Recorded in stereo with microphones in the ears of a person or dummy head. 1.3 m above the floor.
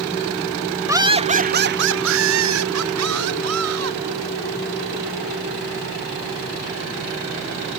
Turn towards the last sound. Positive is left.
turn(degrees=-80)